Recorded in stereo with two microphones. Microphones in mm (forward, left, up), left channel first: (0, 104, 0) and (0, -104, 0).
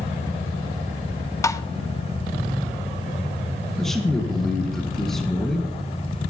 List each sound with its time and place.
1.4 s tapping: 15° left (ahead or behind), 0.7 m
3.8 s a man speaking: centre (ahead or behind), 2 m